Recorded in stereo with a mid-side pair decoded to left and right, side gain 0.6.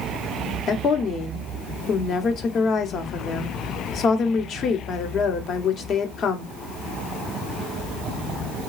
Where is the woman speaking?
50° left, 1.0 m.